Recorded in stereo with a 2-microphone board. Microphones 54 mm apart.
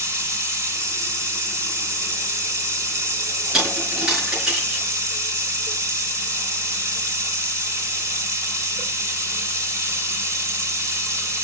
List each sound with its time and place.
0.0 s running water: 70° right (ahead or behind), 1.4 m
3.5 s a dropped coin: 15° right (ahead or behind), 5.5 m